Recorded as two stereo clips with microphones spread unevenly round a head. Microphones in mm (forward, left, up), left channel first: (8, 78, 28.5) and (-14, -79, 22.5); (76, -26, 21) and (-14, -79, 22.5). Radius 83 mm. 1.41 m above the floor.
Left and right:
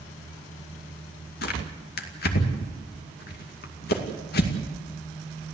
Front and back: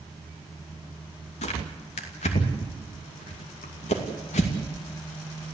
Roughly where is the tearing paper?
Ahead left.